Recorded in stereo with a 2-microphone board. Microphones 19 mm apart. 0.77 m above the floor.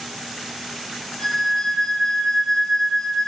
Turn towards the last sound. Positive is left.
turn(degrees=65)  # may be behind; listen again after turning